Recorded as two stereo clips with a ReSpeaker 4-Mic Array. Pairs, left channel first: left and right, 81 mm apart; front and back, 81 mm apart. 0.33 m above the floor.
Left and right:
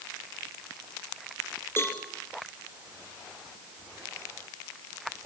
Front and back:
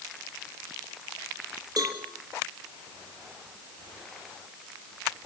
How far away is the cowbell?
About 3 m.